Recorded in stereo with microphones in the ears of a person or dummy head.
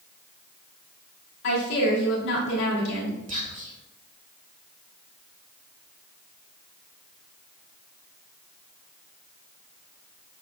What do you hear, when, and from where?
1.4 s a woman speaking: 65° left (ahead or behind), 3 m
3.3 s whispering: 40° right (ahead or behind), 1.6 m